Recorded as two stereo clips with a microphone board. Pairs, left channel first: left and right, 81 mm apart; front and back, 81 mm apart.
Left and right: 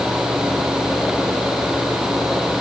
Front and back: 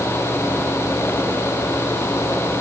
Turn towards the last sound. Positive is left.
No sound to turn to.